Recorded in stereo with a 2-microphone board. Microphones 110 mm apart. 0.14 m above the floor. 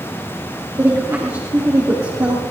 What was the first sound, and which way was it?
A woman speaking, 30° right (ahead or behind).